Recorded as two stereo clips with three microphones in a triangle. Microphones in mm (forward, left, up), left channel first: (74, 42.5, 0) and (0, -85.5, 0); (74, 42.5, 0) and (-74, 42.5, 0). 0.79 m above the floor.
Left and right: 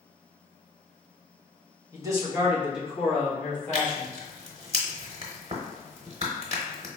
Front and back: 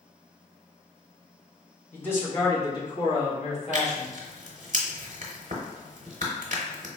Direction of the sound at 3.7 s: 160° right.